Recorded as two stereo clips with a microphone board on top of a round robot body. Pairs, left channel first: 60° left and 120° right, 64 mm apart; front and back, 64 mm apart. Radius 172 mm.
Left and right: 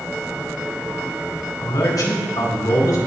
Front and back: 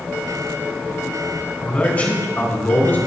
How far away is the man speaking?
About 4 m.